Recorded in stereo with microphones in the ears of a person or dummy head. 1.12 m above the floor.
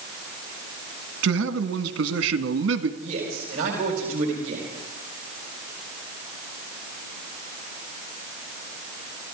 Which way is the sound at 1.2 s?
75° right (ahead or behind).